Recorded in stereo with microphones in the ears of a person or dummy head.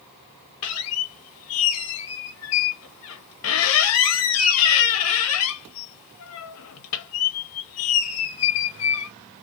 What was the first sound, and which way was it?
A squeak, 75° left (ahead or behind).